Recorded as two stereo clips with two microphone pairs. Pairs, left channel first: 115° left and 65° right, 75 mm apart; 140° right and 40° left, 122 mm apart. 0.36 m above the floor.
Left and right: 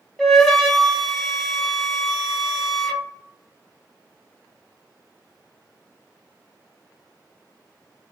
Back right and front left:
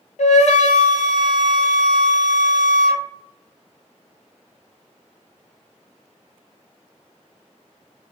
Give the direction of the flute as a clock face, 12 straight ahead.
5 o'clock.